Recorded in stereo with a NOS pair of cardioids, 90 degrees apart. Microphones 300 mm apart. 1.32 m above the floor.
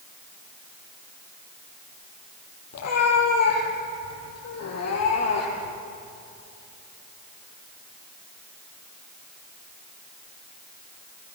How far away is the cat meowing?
About 8 m.